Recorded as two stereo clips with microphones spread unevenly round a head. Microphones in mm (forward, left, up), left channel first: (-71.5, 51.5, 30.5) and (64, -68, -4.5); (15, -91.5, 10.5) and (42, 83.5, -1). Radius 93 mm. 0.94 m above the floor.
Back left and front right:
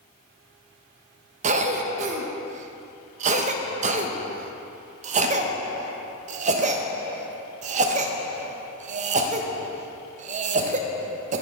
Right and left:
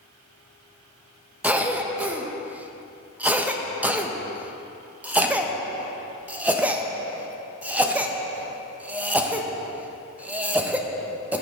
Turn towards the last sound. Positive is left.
turn(degrees=0)